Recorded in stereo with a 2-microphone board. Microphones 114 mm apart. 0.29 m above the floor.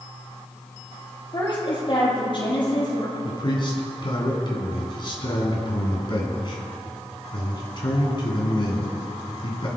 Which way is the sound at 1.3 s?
45° left (ahead or behind).